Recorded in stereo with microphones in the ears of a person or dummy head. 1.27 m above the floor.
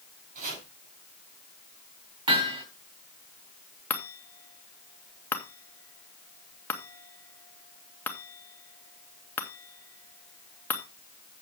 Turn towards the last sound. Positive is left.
turn(degrees=10)  # may be behind; listen again after turning